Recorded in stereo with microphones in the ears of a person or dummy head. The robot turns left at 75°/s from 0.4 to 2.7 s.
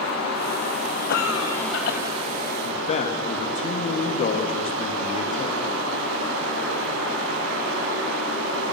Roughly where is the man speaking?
Left.